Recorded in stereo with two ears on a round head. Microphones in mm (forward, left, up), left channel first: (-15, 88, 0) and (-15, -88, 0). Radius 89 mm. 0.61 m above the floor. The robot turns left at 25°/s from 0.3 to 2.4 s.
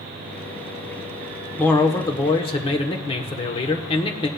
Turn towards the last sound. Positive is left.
turn(degrees=25)  # may be behind; listen again after turning